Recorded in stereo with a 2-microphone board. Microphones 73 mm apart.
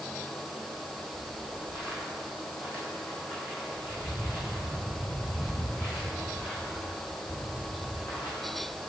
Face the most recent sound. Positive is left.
turn(degrees=30)  # may be behind; listen again after turning